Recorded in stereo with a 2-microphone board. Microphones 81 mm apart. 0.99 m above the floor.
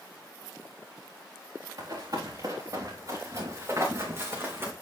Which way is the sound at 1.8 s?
55° right (ahead or behind).